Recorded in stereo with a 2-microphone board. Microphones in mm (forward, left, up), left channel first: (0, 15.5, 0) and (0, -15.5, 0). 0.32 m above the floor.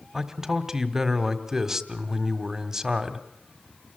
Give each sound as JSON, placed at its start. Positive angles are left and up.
{"t": 0.1, "sound": "a man speaking", "side_deg": -15, "distance_m": 1.8}